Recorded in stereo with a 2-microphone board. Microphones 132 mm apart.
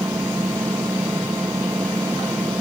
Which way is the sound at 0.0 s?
20° right (ahead or behind).